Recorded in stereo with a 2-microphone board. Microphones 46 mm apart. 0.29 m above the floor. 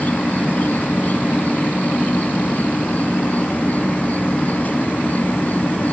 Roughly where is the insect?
Left.